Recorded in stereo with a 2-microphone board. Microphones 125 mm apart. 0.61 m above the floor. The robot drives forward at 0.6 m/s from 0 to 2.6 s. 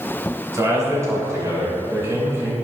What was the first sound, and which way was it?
A man speaking, 30° right (ahead or behind).